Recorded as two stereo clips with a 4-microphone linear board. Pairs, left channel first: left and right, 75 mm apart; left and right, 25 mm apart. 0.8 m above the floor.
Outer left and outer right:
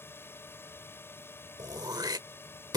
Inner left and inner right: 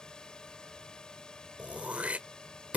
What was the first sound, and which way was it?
A drone, 30° left (ahead or behind).